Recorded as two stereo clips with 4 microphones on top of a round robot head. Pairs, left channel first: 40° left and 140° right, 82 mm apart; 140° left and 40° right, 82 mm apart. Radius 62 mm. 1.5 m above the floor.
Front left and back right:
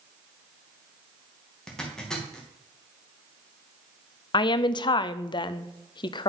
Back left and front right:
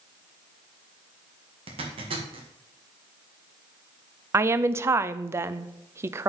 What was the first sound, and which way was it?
A zipper, 45° right.